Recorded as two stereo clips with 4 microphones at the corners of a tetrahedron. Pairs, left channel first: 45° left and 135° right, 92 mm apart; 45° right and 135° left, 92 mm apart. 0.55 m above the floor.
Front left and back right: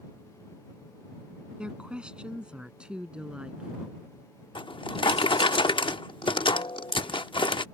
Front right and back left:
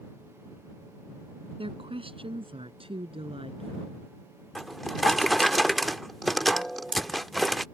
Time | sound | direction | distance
1.6 | a woman speaking | 145° left | ?
4.5 | a drawer | 45° left | ?